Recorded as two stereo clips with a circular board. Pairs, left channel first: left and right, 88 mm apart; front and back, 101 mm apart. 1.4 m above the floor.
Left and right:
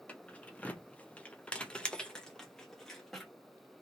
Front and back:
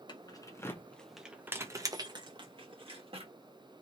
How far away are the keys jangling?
About 0.8 m.